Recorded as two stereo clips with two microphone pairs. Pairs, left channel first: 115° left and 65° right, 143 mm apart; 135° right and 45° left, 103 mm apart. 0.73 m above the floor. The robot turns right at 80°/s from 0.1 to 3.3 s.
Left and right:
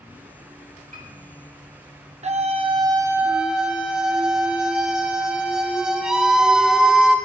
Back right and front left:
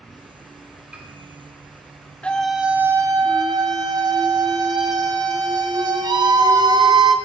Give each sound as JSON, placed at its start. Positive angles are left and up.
{"t": 0.9, "sound": "a piano", "azimuth_deg": -35, "distance_m": 3.0}
{"t": 2.2, "sound": "a scream", "azimuth_deg": -65, "distance_m": 0.9}